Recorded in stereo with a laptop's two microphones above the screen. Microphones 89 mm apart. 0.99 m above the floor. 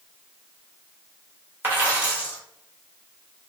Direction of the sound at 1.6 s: 25° right (ahead or behind).